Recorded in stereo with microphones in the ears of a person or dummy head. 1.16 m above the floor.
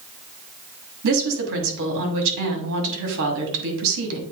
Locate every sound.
1.0 s a woman speaking: 70° right (ahead or behind), 2 m